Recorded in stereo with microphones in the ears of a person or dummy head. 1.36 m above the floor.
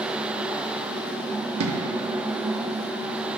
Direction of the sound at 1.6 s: 70° right (ahead or behind).